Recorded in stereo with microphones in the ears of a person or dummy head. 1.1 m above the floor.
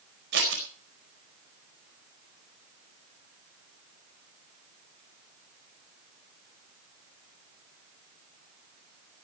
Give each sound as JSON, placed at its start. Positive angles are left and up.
{"t": 0.3, "sound": "scissors", "side_deg": -65, "distance_m": 4.5}